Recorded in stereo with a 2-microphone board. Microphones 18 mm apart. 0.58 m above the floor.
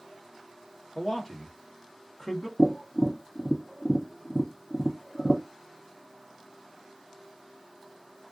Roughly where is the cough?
No cough in this recording.